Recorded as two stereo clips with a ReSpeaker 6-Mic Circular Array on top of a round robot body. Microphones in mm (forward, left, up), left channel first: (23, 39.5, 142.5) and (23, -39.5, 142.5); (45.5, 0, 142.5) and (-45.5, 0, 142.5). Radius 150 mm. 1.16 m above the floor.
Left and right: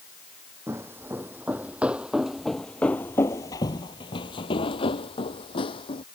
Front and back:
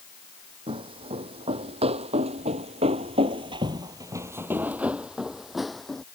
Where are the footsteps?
150° right; by 6.0 s 85° left.